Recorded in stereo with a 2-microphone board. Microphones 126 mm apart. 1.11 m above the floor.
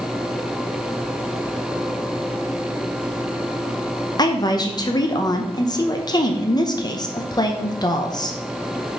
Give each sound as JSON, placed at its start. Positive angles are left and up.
{"t": 4.2, "sound": "a woman speaking", "side_deg": 35, "distance_m": 0.8}